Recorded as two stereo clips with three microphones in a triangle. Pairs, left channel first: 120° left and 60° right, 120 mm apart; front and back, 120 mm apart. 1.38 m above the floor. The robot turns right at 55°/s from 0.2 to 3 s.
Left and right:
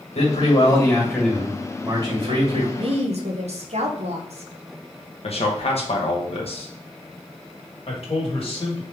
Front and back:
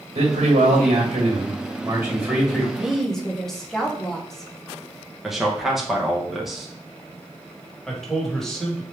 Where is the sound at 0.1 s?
145° left, 2 m; by 2.7 s 80° right, 2 m.